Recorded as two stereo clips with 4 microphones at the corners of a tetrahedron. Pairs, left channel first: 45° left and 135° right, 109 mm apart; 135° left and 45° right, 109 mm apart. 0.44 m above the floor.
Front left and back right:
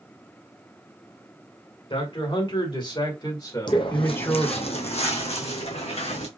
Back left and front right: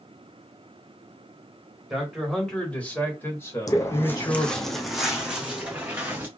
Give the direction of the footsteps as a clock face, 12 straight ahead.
9 o'clock.